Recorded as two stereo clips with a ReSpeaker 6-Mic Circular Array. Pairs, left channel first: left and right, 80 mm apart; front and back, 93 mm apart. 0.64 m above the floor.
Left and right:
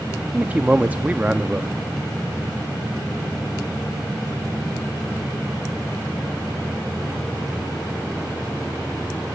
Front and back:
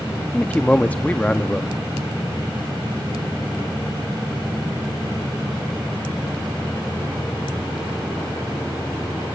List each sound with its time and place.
0.3 s a man speaking: 45° right, 0.5 m